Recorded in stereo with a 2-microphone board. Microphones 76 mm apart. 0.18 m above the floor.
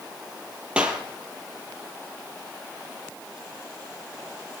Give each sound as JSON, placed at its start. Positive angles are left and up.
{"t": 0.8, "sound": "a clap", "side_deg": -15, "distance_m": 4.5}